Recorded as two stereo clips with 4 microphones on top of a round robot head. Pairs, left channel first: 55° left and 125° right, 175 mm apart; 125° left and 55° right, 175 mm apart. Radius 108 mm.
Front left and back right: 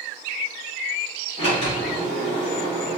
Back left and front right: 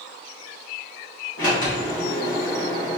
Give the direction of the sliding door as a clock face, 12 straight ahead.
8 o'clock.